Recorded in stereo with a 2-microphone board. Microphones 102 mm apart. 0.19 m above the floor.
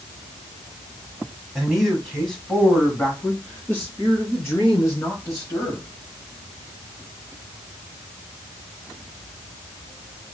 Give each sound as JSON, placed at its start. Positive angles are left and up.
{"t": 1.6, "sound": "a man speaking", "side_deg": -5, "distance_m": 1.5}